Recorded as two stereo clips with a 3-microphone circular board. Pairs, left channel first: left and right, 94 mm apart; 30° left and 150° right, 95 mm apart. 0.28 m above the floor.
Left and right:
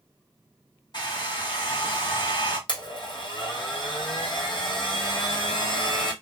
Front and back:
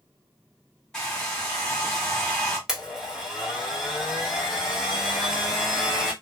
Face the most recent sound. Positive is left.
turn(degrees=125)